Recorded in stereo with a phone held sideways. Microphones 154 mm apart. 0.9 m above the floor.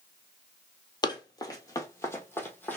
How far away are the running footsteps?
About 1.0 m.